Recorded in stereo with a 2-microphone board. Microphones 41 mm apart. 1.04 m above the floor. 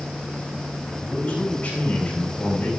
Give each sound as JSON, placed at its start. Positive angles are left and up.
{"t": 1.0, "sound": "a man speaking", "side_deg": 35, "distance_m": 5.5}